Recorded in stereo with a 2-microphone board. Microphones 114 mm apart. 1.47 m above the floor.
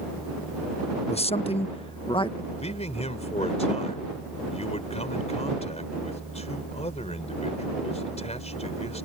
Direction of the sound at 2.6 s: 75° left (ahead or behind).